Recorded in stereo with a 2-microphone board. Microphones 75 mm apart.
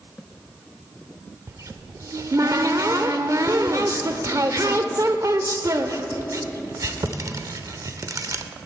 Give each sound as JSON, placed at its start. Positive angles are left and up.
{"t": 1.5, "sound": "a cupboard door", "side_deg": -50, "distance_m": 0.6}